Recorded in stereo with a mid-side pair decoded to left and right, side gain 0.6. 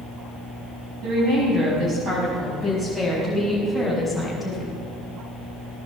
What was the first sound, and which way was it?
A woman speaking, 55° right.